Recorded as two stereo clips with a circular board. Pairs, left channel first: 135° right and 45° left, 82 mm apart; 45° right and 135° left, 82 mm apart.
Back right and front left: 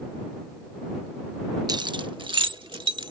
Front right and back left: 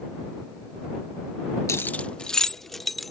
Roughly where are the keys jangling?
Ahead.